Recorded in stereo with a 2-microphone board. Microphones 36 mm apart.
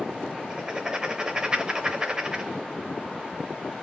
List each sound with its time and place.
0.5 s writing: 20° right (ahead or behind), 0.5 m